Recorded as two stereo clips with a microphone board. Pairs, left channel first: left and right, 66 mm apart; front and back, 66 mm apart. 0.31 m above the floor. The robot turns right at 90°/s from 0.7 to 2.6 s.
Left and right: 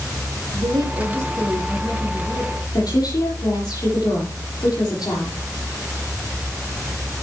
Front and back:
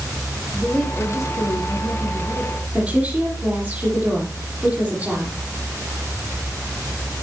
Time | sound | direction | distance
0.5 | a woman speaking | 90° right | 5.5 m
2.7 | a woman speaking | 110° left | 9 m